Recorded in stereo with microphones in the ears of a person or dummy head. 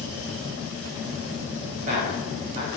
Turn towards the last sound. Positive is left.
turn(degrees=-45)  # may be behind; listen again after turning